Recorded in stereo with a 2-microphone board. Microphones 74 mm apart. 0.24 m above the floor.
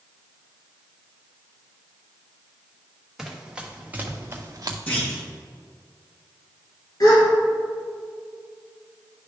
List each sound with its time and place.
3.2 s running footsteps: 5° right (ahead or behind), 1.9 m; by 4.8 s 55° right (ahead or behind), 1.0 m
4.9 s a clunk: 20° left (ahead or behind), 3 m
7.0 s a gasp: 55° left (ahead or behind), 2.5 m